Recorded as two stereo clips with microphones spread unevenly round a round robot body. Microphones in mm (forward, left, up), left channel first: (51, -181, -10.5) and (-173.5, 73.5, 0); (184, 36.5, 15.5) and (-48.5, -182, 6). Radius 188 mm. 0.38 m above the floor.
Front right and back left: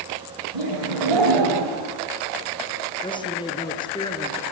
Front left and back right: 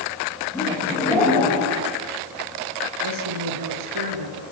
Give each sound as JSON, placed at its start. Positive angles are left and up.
{"t": 0.5, "sound": "laughter", "azimuth_deg": 125, "distance_m": 10.0}
{"t": 3.0, "sound": "a man speaking", "azimuth_deg": -125, "distance_m": 5.0}